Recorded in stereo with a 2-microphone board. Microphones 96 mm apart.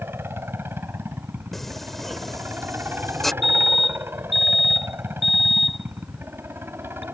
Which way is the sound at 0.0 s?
25° right (ahead or behind).